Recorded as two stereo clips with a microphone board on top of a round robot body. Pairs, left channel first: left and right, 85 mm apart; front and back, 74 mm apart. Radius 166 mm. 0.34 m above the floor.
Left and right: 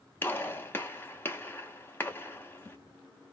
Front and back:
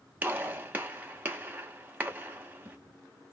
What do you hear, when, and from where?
0.2 s a gunshot: 130° left, 1.1 m